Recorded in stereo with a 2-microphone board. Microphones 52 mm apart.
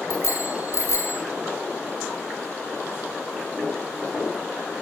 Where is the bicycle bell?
70° left (ahead or behind), 3 m.